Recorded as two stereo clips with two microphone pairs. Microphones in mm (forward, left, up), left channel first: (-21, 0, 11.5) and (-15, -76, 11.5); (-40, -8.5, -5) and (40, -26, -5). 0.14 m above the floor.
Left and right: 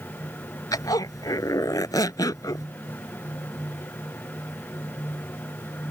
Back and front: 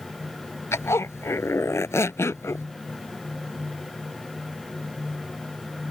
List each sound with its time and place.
0.7 s a zipper: 120° left